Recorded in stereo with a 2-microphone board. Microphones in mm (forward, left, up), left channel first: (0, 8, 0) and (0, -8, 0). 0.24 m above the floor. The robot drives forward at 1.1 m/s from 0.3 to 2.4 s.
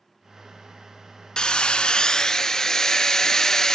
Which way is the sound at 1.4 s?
60° left (ahead or behind).